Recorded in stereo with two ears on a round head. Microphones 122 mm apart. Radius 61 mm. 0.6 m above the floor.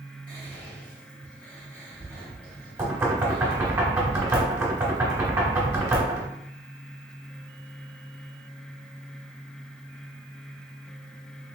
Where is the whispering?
10° left (ahead or behind), 2.5 m.